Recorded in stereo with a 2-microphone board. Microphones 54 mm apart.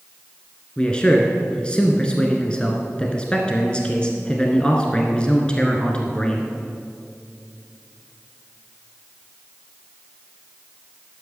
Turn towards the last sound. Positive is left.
turn(degrees=20)  # may be behind; listen again after turning